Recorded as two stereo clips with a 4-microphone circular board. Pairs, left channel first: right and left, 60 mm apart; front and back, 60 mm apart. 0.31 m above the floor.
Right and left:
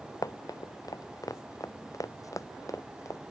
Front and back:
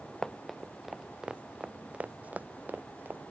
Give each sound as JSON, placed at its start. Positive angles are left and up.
{"t": 0.2, "sound": "running footsteps", "azimuth_deg": -80}